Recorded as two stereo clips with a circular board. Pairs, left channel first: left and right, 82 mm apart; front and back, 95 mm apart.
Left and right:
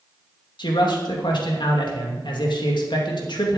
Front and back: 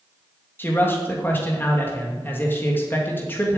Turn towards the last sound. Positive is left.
turn(degrees=70)